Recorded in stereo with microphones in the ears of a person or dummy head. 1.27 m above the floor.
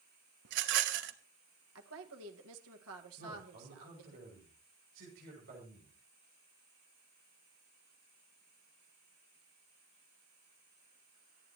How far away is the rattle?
About 1.0 m.